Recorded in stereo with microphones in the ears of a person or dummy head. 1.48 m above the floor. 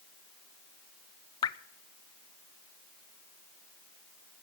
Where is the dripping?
25° left (ahead or behind), 0.6 m.